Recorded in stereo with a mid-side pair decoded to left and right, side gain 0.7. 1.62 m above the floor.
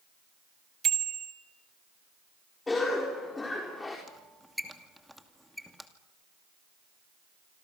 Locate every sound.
0.8 s a bicycle bell: 35° right, 3 m
2.7 s a cough: 15° left, 4.5 m
4.1 s a squeak: straight ahead, 2.5 m